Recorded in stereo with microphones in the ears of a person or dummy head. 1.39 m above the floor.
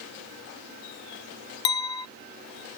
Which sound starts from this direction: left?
A clink, at 1.6 s.